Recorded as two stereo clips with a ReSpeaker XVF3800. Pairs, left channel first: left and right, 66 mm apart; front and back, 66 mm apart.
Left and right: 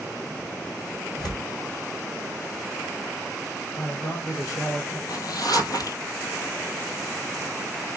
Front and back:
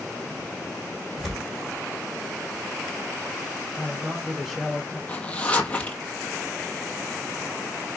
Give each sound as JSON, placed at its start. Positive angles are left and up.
{"t": 1.2, "sound": "tearing paper", "azimuth_deg": 95, "distance_m": 2.0}
{"t": 3.8, "sound": "a man speaking", "azimuth_deg": 90, "distance_m": 2.0}
{"t": 5.1, "sound": "a zipper", "azimuth_deg": 70, "distance_m": 1.0}